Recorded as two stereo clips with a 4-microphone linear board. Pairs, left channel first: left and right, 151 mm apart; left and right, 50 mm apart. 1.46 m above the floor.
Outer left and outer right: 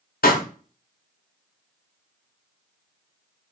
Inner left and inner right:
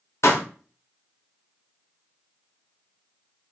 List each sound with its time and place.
0.2 s a pop: 75° left (ahead or behind), 0.7 m